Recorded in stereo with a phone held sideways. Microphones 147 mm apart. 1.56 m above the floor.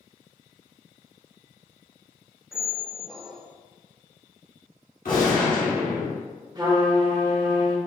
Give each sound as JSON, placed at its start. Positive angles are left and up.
{"t": 2.5, "sound": "a squeak", "side_deg": 0, "distance_m": 0.5}
{"t": 5.0, "sound": "a gunshot", "side_deg": 75, "distance_m": 1.9}
{"t": 6.5, "sound": "a trumpet", "side_deg": -30, "distance_m": 1.0}